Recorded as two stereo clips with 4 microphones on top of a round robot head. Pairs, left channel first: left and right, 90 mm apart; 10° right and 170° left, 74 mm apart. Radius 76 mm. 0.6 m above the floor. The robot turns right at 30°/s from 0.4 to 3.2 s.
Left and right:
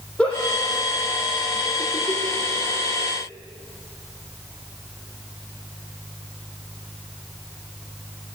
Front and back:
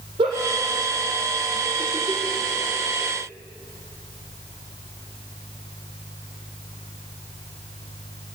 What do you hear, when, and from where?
0.2 s a giggle: 170° left, 4 m; by 3.1 s 110° right, 4 m